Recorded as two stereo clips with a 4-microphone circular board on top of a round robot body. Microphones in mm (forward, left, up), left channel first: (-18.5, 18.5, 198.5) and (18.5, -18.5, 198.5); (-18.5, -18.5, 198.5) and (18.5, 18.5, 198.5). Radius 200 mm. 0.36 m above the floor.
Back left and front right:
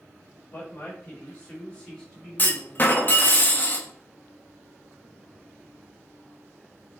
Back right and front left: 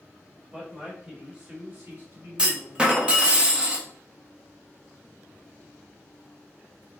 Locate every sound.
0.5 s a man speaking: 110° left, 1.8 m; by 3.4 s 35° left, 1.9 m
2.4 s a clunk: 105° left, 0.9 m